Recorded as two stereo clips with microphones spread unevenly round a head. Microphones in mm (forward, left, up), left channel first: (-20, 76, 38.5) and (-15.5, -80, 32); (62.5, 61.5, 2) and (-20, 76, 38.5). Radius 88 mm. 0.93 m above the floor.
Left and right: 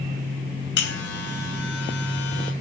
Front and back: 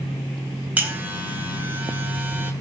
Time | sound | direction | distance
0.8 | a buzzer | 100° left | 4.5 m